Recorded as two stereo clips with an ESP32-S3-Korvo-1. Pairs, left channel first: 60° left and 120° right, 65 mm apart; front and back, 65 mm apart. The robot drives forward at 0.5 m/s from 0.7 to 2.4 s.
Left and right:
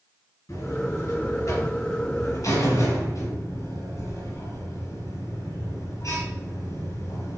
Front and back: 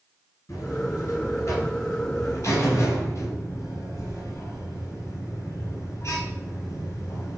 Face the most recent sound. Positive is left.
turn(degrees=40)